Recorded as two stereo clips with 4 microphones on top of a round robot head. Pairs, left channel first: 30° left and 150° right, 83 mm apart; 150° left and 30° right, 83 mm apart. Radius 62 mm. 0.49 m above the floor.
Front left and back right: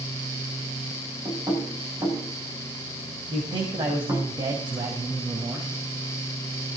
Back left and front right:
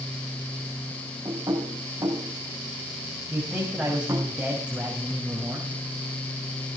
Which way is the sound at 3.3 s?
110° right.